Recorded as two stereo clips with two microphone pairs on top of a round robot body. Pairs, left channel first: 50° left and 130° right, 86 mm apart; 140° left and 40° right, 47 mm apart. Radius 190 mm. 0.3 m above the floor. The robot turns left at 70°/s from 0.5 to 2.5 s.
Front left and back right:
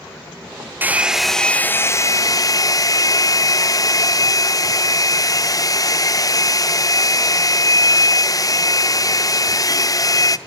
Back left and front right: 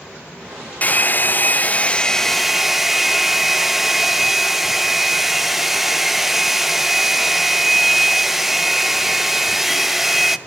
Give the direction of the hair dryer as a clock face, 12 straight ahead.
6 o'clock.